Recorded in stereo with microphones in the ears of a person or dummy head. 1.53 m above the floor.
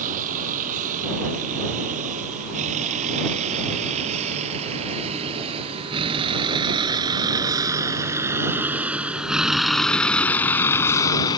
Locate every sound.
0.0 s a vehicle: 40° right (ahead or behind); by 11.4 s 25° left (ahead or behind)